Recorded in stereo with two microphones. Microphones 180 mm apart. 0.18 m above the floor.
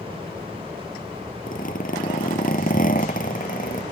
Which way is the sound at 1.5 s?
50° left (ahead or behind).